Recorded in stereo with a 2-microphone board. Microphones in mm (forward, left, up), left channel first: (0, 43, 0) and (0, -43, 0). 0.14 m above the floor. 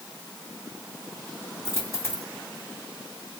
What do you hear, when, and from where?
1.6 s a dropped coin: 30° left (ahead or behind), 3 m